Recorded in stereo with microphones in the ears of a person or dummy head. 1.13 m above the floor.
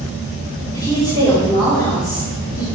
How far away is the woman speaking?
About 2.5 m.